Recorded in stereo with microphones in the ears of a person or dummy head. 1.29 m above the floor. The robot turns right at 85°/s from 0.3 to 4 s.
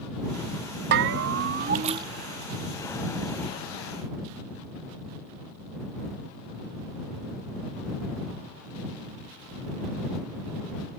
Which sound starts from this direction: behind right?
A bell, at 0.9 s.